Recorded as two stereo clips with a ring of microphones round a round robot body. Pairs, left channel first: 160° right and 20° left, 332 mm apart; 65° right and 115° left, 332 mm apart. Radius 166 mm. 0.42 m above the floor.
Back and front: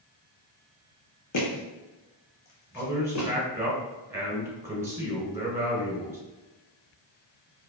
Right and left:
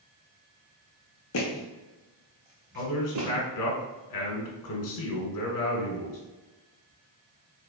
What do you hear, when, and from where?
1.3 s footsteps: 115° right, 1.4 m; by 3.3 s 155° left, 1.9 m
2.8 s a man speaking: 60° right, 1.6 m